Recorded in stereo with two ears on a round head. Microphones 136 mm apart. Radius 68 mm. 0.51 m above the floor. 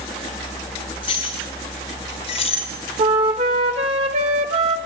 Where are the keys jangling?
35° left (ahead or behind), 4.5 m; by 2.7 s 45° left (ahead or behind), 3.5 m.